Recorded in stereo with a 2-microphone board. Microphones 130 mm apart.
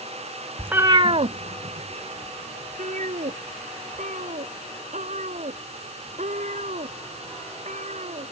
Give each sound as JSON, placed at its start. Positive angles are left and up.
{"t": 0.6, "sound": "a cat meowing", "side_deg": -5}